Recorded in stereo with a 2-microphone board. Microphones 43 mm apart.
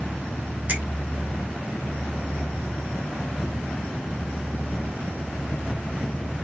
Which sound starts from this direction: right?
A finger snap, at 0.7 s.